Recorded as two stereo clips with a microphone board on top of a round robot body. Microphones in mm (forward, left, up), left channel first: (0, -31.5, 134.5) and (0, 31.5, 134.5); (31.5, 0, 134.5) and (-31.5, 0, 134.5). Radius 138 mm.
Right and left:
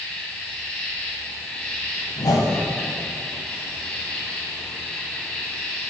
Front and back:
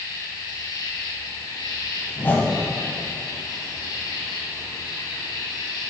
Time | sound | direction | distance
0.0 | an insect | 20° right | 2 m
2.2 | a whoosh | 65° right | 1.6 m